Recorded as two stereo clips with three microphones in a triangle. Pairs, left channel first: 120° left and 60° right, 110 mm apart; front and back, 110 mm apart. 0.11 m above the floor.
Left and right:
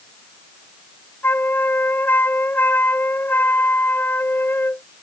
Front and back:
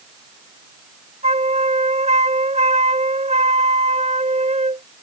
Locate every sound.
1.2 s a flute: 170° right